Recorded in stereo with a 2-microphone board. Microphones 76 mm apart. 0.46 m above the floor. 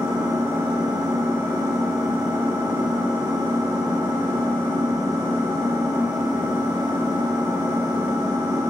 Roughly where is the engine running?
Right.